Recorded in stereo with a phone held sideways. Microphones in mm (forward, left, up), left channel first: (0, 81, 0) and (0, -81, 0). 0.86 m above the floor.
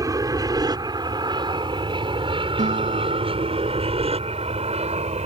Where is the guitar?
50° right (ahead or behind).